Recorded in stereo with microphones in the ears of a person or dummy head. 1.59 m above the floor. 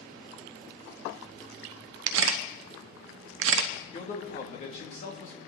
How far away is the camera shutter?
About 0.8 m.